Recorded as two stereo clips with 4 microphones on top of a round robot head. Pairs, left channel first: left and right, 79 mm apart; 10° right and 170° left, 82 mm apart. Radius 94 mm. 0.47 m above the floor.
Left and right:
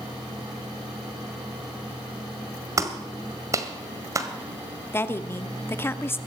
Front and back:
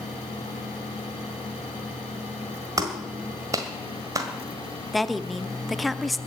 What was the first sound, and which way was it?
A clap, 140° right.